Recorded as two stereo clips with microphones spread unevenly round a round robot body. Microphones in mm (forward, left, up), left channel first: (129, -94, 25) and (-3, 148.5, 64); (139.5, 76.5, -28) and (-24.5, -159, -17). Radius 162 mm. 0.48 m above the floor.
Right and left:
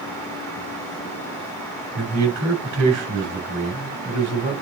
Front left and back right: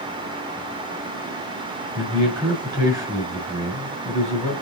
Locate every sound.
1.9 s a man speaking: 155° left, 3.5 m